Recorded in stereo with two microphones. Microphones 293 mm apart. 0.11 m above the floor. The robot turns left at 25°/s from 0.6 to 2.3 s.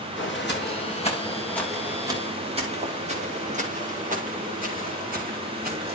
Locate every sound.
0.2 s footsteps: 40° left (ahead or behind), 4 m; by 6.0 s 30° right (ahead or behind), 7.5 m